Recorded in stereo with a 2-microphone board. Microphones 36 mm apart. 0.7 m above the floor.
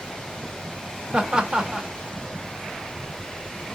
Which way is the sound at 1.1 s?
30° right (ahead or behind).